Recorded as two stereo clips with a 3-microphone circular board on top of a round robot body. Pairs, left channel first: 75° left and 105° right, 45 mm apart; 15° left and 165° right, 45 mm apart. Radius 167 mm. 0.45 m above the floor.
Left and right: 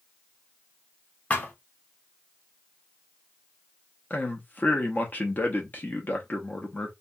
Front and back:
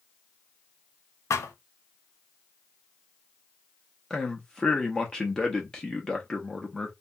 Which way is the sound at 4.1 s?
80° left.